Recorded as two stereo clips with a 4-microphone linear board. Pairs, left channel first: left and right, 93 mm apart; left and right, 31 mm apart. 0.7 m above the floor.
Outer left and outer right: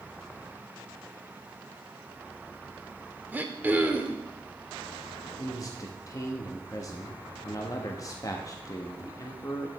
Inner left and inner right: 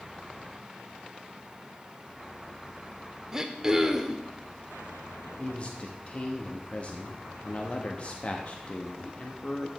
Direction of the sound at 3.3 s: 20° right (ahead or behind).